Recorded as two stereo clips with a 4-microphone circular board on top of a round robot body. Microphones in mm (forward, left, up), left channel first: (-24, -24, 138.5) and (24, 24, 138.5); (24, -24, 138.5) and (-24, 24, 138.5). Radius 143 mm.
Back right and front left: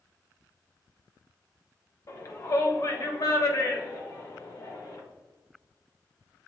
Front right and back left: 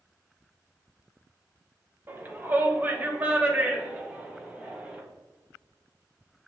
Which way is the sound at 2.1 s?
170° right.